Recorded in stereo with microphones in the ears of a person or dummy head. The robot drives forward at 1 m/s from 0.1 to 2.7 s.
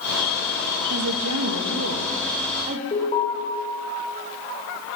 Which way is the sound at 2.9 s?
35° left (ahead or behind).